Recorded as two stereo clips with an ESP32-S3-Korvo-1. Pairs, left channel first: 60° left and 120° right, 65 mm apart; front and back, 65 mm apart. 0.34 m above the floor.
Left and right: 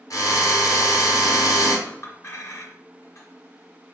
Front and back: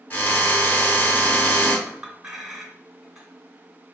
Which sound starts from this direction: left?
A clink, at 1.9 s.